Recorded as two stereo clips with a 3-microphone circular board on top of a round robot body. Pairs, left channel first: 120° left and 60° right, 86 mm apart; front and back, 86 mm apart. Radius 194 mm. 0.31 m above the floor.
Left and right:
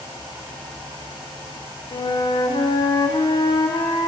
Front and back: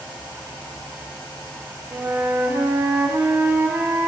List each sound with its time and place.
1.9 s a flute: 120° left, 0.8 m